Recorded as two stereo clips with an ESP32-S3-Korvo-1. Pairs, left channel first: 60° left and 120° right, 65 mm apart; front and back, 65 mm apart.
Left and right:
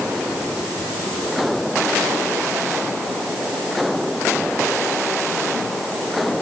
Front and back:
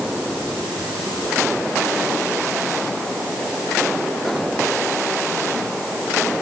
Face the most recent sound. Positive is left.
No sound to turn to.